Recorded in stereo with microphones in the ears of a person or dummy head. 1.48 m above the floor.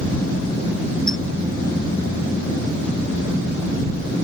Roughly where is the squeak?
Centre.